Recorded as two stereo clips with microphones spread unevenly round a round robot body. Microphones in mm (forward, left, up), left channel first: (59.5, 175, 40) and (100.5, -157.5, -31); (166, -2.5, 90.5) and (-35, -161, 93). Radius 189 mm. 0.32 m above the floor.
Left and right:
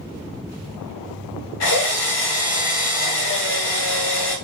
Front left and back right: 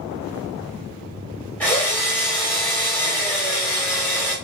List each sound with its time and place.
1.6 s a drill: 115° left, 1.6 m